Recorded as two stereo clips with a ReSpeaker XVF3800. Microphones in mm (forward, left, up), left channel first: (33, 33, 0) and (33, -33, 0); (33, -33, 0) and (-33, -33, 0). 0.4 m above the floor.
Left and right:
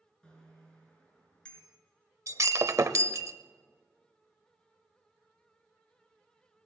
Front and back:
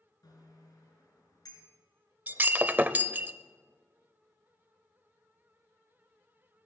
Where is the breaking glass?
120° right, 0.7 m.